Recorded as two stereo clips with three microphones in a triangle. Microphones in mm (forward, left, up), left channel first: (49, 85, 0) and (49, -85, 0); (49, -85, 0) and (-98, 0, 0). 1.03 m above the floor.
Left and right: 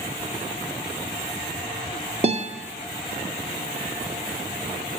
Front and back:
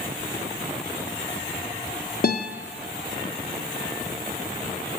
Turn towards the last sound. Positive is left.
turn(degrees=-40)